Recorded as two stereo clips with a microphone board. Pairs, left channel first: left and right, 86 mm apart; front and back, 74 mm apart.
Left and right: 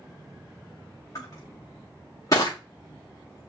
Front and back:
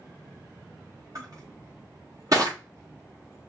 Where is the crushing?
140° left, 4 m.